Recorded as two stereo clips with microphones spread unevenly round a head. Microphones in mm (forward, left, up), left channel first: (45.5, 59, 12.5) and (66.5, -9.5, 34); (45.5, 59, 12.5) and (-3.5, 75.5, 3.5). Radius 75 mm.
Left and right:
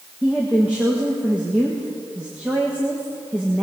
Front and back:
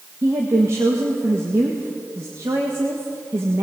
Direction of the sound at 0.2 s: 160° right.